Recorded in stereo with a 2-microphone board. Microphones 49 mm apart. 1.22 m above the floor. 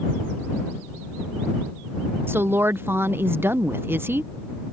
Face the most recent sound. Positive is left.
turn(degrees=-45)  # may be behind; listen again after turning